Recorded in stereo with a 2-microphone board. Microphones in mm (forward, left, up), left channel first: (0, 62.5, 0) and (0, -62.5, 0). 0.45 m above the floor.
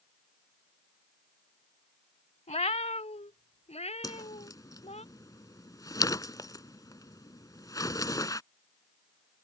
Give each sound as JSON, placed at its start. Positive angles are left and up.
{"t": 2.5, "sound": "a cat meowing", "side_deg": 65}
{"t": 4.0, "sound": "a whoosh", "side_deg": 30}